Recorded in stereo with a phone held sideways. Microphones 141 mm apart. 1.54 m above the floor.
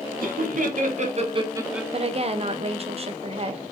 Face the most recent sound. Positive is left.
turn(degrees=-40)  # may be behind; listen again after turning